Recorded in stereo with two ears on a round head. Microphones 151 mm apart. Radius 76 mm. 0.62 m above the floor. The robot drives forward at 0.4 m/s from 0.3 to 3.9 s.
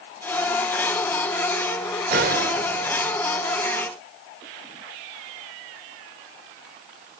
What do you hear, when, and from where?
2.1 s a gunshot: 60° right (ahead or behind), 1.5 m; by 3.2 s 50° right (ahead or behind), 1.7 m